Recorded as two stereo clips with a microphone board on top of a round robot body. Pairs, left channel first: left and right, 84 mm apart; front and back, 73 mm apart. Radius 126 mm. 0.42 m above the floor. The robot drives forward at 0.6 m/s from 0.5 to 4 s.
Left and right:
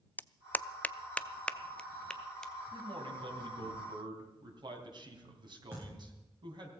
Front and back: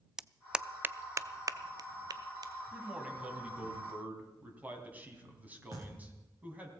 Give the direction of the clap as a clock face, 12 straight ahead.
8 o'clock.